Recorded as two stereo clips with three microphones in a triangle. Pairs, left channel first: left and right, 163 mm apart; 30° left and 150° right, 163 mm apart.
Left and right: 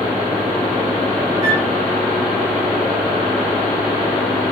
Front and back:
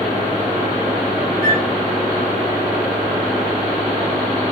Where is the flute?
155° right, 7 m.